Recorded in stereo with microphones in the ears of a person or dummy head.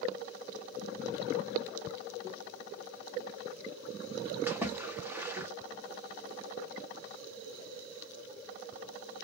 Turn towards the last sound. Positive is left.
turn(degrees=-10)  # may be behind; listen again after turning